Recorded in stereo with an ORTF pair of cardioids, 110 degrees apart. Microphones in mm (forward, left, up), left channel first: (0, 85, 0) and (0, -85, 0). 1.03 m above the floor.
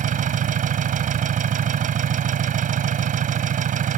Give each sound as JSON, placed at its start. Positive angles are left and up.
{"t": 0.0, "sound": "an engine running", "azimuth_deg": -50}